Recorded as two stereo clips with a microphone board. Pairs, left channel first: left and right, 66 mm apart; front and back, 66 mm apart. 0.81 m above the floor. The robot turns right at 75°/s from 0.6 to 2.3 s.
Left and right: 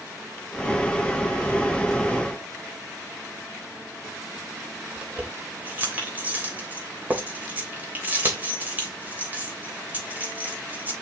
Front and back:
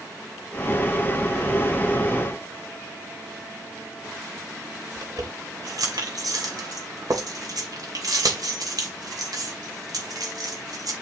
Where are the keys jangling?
155° right, 3 m.